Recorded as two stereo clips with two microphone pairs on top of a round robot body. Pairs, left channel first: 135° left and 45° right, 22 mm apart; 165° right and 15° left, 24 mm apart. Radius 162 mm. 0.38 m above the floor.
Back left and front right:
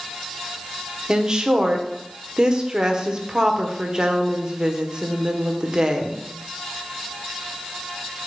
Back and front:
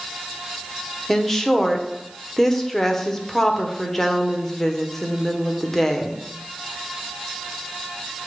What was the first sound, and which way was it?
A woman speaking, 90° right.